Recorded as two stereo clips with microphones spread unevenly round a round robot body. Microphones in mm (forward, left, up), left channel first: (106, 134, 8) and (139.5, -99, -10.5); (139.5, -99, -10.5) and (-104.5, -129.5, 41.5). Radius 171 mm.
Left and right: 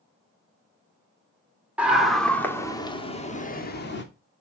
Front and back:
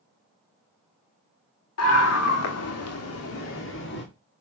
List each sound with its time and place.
1.8 s a scream: straight ahead, 2.5 m; by 4.0 s 60° left, 2 m